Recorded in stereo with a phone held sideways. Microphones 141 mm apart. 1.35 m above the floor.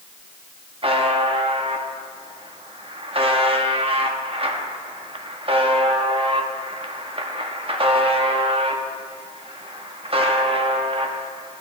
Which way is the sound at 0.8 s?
40° right (ahead or behind).